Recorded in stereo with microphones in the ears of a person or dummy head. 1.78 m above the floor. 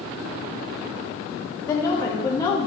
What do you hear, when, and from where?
1.7 s a woman speaking: 20° left (ahead or behind), 1.0 m